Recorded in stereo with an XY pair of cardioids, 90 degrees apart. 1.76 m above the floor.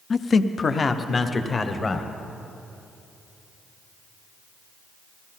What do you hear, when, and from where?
0.1 s a man speaking: 50° left, 0.5 m; by 2.1 s 40° left, 1.5 m